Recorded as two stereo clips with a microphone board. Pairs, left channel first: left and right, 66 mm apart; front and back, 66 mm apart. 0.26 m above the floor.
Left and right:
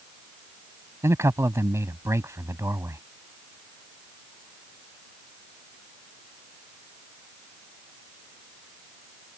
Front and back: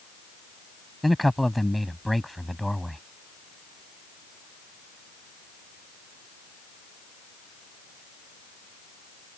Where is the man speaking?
90° right.